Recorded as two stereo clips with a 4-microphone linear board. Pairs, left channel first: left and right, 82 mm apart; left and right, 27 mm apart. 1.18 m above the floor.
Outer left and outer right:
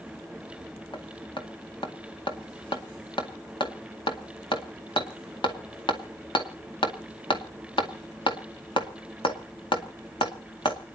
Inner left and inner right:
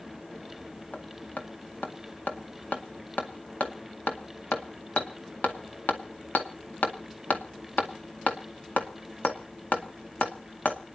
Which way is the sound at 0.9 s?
80° left.